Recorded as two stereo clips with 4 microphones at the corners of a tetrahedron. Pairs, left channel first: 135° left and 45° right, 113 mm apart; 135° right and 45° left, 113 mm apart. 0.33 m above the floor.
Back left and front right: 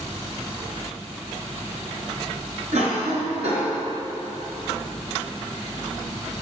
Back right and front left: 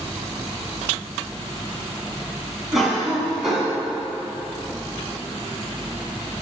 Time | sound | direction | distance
2.7 | a cough | 45° right | 3 m